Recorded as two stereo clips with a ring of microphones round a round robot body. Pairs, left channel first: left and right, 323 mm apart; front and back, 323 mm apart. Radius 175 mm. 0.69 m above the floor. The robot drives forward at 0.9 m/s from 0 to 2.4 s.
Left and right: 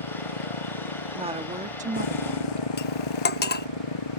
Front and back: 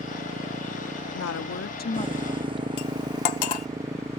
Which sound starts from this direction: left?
A motorcycle, at 0.0 s.